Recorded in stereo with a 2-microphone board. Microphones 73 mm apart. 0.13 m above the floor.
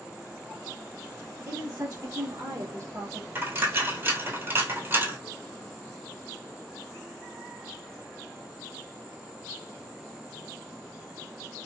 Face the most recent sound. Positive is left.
turn(degrees=-30)  # may be behind; listen again after turning